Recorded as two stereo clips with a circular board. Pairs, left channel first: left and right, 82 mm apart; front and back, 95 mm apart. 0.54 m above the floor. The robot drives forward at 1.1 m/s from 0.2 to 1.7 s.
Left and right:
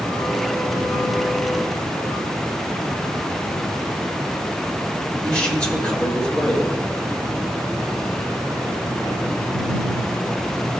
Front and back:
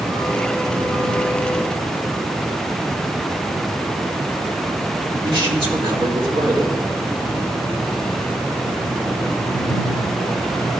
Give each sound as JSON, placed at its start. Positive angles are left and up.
{"t": 5.2, "sound": "a man speaking", "azimuth_deg": 165, "distance_m": 1.8}